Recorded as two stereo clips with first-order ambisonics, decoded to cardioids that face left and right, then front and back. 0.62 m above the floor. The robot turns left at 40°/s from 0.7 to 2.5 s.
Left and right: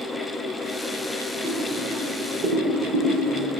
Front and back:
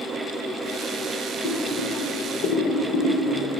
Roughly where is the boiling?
Ahead.